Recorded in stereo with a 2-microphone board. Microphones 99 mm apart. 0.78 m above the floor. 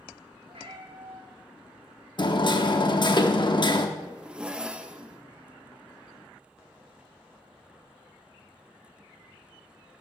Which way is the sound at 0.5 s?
70° right (ahead or behind).